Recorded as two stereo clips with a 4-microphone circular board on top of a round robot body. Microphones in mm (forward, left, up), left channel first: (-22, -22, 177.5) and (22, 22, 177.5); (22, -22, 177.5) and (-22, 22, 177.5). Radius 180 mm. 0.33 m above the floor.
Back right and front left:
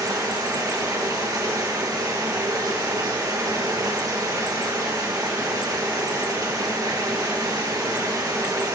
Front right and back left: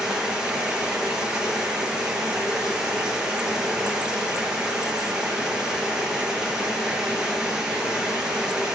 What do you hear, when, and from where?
0.0 s running water: 55° left, 9.5 m